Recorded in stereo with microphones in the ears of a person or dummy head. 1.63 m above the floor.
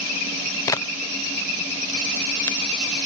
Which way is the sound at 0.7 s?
15° left (ahead or behind).